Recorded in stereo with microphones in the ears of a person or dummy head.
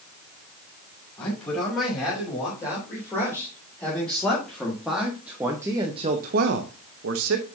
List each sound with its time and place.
1.2 s a man speaking: 15° left (ahead or behind), 5.5 m; by 7.5 s 65° right (ahead or behind), 1.2 m